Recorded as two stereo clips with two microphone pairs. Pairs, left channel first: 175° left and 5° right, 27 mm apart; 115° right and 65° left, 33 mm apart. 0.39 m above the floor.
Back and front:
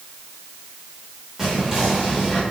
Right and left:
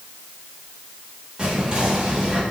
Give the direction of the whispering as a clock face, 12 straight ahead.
10 o'clock.